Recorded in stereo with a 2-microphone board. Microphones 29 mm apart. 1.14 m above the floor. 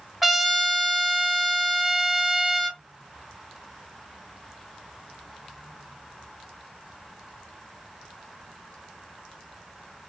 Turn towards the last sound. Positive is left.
turn(degrees=-10)  # may be behind; listen again after turning